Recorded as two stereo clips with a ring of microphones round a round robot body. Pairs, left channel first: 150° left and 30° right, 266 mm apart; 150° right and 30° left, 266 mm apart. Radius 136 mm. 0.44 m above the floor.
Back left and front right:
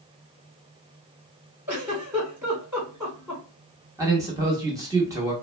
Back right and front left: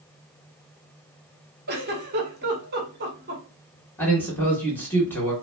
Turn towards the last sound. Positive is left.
turn(degrees=-80)